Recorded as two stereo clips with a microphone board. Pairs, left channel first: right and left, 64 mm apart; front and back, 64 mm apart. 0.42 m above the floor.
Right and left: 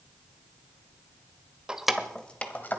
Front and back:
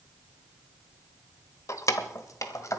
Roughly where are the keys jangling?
Ahead.